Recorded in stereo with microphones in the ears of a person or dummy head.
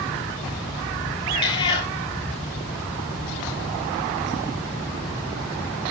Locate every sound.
1.3 s a cat meowing: 30° left (ahead or behind), 2 m